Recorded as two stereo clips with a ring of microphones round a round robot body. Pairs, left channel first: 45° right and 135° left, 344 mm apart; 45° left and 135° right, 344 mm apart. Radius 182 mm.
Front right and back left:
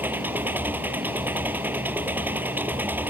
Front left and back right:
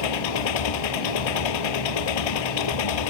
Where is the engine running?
50° left.